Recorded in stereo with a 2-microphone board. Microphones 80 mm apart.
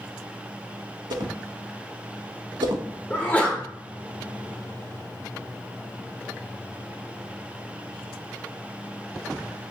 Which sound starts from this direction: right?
A whoosh, at 1.1 s.